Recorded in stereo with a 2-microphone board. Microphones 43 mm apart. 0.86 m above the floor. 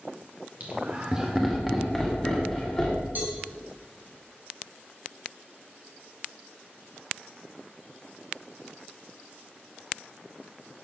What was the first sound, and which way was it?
Laughter, 40° right (ahead or behind).